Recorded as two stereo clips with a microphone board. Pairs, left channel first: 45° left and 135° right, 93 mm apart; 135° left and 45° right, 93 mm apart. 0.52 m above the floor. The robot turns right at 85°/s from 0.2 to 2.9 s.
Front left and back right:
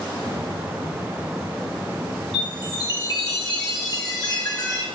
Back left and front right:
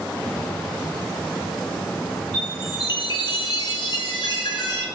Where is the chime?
50° left, 3 m; by 4.8 s 95° left, 3 m.